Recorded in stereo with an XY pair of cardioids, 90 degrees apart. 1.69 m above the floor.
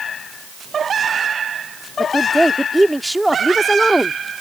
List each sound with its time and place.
2.0 s a woman speaking: 10° right